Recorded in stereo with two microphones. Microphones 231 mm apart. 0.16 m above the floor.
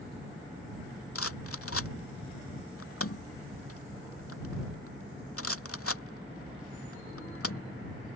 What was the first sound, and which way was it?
A rattle, 80° left.